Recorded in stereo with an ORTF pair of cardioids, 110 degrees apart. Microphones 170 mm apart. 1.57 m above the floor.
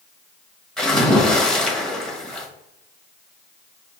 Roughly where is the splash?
Ahead.